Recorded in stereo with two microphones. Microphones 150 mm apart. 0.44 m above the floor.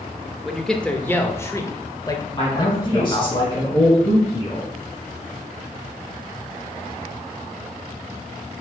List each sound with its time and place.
0.5 s a man speaking: centre (ahead or behind), 0.8 m; by 3.3 s 30° left (ahead or behind), 1.9 m
2.3 s a man speaking: 35° left (ahead or behind), 3.5 m